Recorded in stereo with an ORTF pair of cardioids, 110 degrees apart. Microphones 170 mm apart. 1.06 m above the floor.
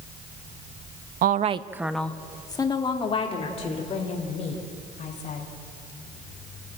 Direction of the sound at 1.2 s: 60° right.